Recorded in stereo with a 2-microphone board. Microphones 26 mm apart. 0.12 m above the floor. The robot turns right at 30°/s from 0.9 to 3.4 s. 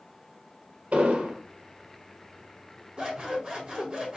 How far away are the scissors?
About 1.4 m.